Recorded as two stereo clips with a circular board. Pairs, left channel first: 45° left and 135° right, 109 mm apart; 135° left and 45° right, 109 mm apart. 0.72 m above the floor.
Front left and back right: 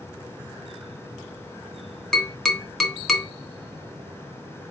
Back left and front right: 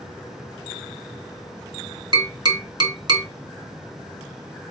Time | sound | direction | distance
2.1 | tapping | 40° right | 1.0 m